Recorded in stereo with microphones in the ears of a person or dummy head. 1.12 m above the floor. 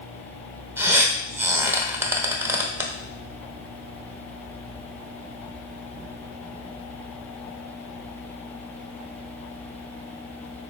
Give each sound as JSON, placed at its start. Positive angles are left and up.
{"t": 0.8, "sound": "a squeak", "side_deg": -15, "distance_m": 0.8}